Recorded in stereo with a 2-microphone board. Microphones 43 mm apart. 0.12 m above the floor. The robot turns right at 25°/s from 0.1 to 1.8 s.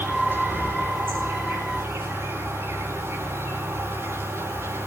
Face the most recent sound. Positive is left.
turn(degrees=-95)